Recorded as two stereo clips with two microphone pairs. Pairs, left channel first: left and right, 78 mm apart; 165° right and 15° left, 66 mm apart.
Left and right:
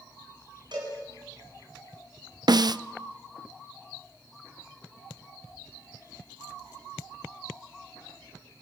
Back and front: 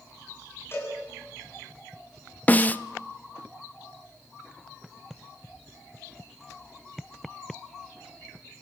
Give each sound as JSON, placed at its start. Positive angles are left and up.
{"t": 0.7, "sound": "a cowbell", "azimuth_deg": -115, "distance_m": 8.5}
{"t": 2.5, "sound": "a snare drum", "azimuth_deg": -105, "distance_m": 0.5}